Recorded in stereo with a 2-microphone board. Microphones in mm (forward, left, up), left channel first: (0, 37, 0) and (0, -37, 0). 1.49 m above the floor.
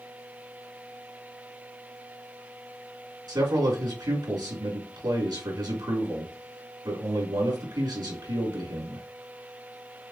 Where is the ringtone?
No ringtone in this recording.